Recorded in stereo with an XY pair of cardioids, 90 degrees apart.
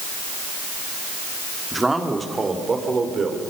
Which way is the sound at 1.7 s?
15° right.